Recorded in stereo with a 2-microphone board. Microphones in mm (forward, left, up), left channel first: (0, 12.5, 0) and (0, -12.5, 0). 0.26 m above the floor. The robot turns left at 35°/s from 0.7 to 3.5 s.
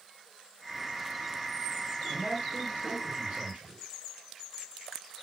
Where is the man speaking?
35° right, 5.5 m; by 3.8 s 85° right, 5.5 m.